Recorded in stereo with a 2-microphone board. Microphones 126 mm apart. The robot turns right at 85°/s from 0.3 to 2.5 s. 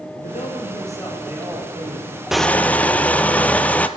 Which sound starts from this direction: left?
A man speaking, at 0.2 s.